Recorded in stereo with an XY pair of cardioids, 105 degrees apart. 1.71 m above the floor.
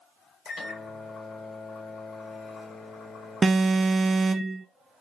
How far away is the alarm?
About 0.6 m.